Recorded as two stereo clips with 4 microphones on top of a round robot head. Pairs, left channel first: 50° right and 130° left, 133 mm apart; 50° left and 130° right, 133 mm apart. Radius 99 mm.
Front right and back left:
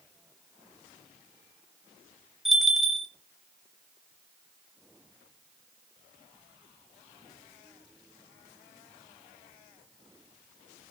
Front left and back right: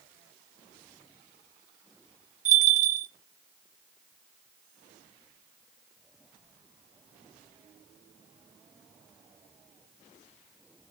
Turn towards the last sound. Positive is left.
turn(degrees=-140)